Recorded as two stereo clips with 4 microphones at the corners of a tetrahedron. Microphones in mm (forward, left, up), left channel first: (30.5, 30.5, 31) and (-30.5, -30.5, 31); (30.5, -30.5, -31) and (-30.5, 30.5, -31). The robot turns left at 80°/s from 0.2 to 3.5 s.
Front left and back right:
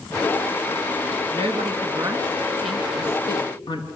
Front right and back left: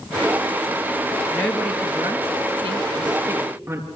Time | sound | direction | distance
1.3 | a woman speaking | 115° right | 5 m